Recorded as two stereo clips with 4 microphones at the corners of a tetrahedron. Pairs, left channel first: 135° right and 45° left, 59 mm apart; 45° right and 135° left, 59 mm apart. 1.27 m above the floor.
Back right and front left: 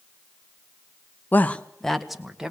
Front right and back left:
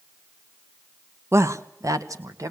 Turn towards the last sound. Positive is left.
turn(degrees=125)